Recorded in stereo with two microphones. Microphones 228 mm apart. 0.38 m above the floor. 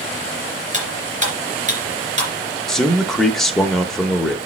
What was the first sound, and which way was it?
Cutlery clinking, 30° right (ahead or behind).